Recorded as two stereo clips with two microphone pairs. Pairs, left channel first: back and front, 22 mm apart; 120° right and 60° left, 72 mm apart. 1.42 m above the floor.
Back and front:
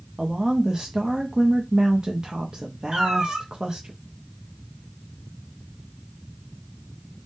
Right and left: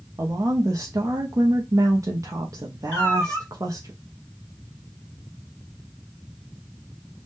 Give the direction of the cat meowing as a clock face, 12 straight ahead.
2 o'clock.